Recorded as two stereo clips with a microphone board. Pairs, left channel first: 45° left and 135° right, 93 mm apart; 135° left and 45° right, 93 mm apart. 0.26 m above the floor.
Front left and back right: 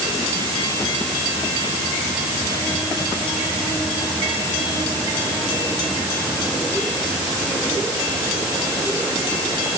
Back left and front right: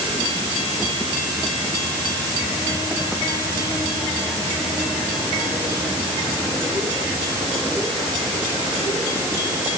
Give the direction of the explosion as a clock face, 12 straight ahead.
No explosion in this recording.